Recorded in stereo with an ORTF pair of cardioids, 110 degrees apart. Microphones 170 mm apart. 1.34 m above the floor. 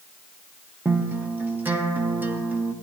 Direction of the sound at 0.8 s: 10° right.